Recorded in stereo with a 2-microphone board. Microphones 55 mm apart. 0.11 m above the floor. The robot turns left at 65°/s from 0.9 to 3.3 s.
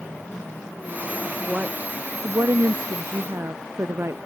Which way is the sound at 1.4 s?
5° right.